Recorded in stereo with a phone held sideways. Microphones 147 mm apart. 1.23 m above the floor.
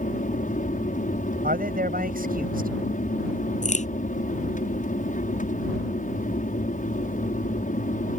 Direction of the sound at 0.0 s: 60° left (ahead or behind).